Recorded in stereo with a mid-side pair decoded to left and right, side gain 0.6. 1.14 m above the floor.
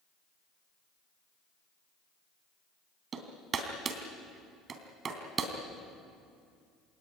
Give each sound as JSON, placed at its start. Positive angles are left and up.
{"t": 3.1, "sound": "hammering", "azimuth_deg": -40, "distance_m": 3.0}